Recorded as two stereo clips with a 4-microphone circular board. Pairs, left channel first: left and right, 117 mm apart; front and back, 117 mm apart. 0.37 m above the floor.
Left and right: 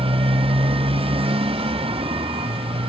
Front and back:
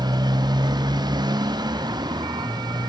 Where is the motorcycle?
125° right.